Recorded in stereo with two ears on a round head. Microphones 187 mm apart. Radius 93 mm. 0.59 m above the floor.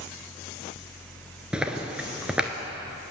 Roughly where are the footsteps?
Centre.